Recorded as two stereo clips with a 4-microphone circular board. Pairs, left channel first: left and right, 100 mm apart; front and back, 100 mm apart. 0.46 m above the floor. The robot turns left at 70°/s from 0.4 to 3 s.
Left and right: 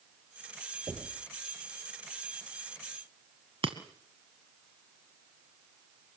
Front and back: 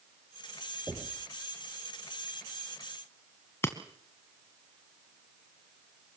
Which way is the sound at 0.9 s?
120° right.